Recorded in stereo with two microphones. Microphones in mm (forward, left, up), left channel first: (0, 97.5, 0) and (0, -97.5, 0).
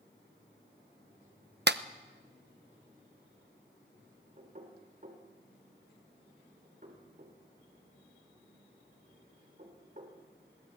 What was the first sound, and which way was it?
A clap, 60° right (ahead or behind).